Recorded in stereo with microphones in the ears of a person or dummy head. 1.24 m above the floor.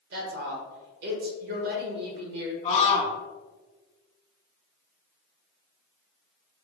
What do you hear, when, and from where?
0.1 s a woman speaking: 55° right (ahead or behind), 1.3 m
2.6 s a scream: 35° left (ahead or behind), 1.5 m